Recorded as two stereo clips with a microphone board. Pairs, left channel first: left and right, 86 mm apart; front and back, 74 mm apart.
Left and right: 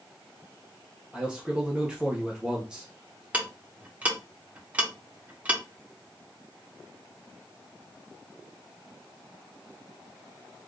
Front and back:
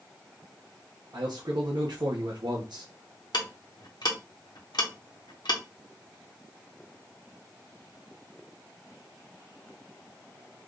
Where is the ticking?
15° right, 1.0 m.